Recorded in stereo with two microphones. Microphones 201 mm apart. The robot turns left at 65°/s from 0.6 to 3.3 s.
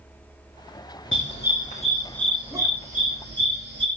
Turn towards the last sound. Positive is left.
turn(degrees=-65)  # may be behind; listen again after turning